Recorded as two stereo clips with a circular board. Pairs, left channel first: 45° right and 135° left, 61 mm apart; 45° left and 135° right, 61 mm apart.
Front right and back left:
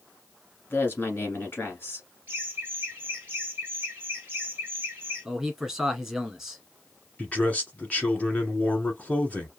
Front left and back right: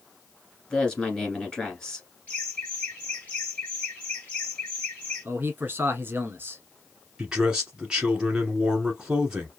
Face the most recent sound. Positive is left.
turn(degrees=-75)